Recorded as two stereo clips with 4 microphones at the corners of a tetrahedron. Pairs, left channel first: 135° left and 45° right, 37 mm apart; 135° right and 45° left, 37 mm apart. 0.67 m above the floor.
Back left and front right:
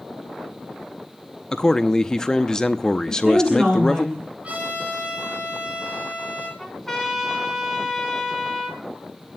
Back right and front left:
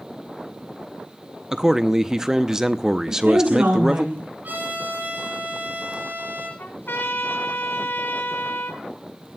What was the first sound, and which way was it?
A man speaking, 95° left.